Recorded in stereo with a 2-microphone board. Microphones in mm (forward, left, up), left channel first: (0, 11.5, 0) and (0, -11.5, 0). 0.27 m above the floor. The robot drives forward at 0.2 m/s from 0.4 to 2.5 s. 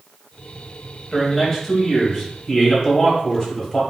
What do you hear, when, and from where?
1.1 s a man speaking: 20° left (ahead or behind), 1.0 m; by 3.8 s 15° left (ahead or behind), 1.1 m